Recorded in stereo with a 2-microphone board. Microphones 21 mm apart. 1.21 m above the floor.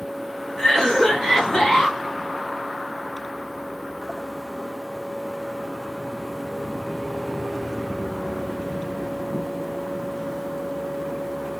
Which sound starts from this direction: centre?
A cough, at 0.6 s.